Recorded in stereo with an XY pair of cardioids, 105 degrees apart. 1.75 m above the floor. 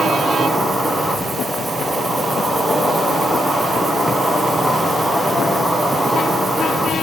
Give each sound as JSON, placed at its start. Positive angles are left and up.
{"t": 0.0, "sound": "an insect", "azimuth_deg": -10, "distance_m": 2.0}